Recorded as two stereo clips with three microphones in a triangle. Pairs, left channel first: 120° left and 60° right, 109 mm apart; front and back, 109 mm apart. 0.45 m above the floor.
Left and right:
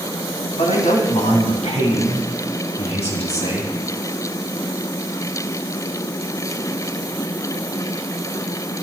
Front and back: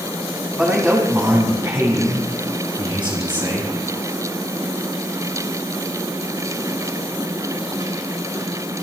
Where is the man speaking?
105° left, 4 m; by 3.7 s 140° left, 6 m.